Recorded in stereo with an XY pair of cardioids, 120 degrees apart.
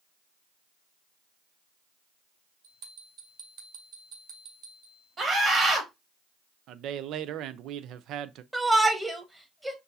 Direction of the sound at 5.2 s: 35° right.